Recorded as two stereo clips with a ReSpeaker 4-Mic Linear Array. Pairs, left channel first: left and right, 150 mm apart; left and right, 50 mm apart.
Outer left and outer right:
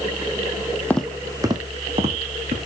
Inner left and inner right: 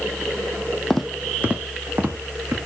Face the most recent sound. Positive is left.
turn(degrees=-50)  # may be behind; listen again after turning